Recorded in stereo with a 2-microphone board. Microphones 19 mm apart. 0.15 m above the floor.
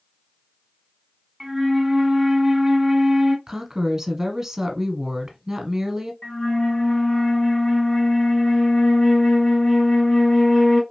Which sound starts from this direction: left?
A flute, at 6.2 s.